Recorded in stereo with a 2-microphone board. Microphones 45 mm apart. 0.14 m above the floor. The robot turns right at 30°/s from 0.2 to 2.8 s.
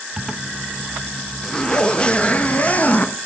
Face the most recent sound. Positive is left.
turn(degrees=65)